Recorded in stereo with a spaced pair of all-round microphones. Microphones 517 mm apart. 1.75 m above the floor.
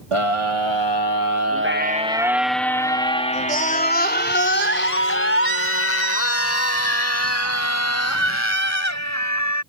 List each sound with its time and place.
0.1 s a scream: 75° right (ahead or behind); by 9.6 s 30° left (ahead or behind)